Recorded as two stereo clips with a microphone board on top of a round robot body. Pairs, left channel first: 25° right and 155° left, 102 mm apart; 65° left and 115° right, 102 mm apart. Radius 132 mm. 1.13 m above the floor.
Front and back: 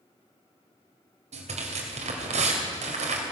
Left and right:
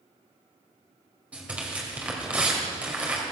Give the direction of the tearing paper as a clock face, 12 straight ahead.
6 o'clock.